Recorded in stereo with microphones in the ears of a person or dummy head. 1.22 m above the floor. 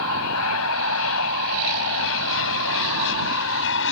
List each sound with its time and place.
0.0 s an aircraft: 75° left (ahead or behind); by 3.9 s 65° left (ahead or behind)